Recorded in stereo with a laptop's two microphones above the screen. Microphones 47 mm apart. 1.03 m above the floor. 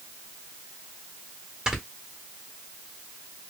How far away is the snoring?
About 2 m.